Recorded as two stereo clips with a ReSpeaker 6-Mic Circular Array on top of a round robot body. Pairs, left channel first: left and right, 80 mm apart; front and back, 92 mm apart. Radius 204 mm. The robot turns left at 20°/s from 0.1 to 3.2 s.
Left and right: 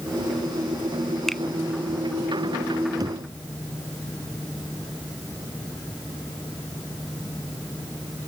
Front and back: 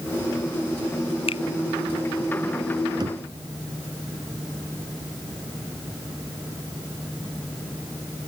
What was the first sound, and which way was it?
A finger snap, 5° left.